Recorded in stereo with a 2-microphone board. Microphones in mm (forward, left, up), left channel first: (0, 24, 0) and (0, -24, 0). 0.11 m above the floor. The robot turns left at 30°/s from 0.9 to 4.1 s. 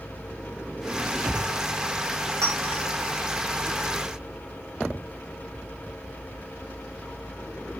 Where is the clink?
80° right, 5 m; by 2.8 s 70° right (ahead or behind), 5 m.